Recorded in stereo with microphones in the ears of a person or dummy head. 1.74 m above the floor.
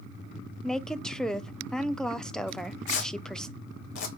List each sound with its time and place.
0.6 s a woman speaking: 5° left (ahead or behind), 0.6 m
2.5 s tearing paper: 60° left (ahead or behind), 2.5 m